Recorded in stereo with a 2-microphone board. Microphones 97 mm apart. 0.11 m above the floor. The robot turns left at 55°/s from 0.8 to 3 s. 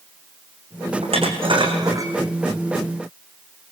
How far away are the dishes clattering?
About 4.5 m.